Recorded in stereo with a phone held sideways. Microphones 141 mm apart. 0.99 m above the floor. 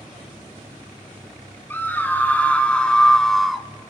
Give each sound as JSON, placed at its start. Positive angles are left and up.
{"t": 1.7, "sound": "a scream", "side_deg": 15, "distance_m": 2.5}